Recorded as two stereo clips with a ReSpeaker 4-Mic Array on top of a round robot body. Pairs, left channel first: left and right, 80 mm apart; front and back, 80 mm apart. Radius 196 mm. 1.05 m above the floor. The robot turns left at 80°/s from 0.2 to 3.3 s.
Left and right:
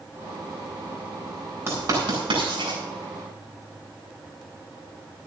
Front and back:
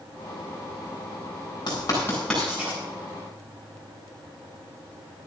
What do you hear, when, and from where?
1.7 s writing: 30° right, 9 m; by 2.8 s 120° right, 9 m